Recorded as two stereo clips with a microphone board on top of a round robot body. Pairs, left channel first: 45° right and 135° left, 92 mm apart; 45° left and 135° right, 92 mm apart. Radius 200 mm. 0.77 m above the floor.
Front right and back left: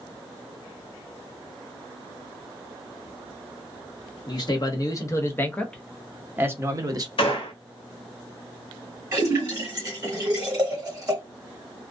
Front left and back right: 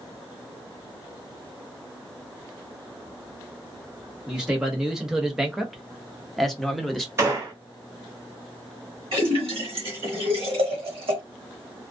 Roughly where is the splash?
Behind.